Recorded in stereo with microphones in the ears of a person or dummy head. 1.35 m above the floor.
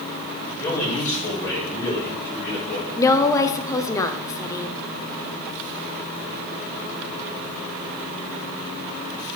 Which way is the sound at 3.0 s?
15° left (ahead or behind).